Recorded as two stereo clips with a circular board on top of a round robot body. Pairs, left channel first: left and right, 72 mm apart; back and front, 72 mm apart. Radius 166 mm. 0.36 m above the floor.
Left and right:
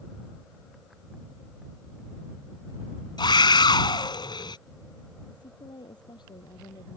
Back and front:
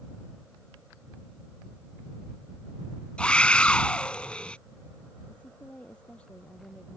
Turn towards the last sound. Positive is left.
turn(degrees=105)